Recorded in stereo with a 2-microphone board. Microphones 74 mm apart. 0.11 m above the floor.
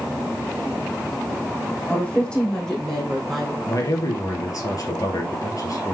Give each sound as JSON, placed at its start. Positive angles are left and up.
{"t": 1.9, "sound": "a woman speaking", "side_deg": 20, "distance_m": 4.0}
{"t": 3.7, "sound": "a man speaking", "side_deg": 50, "distance_m": 2.5}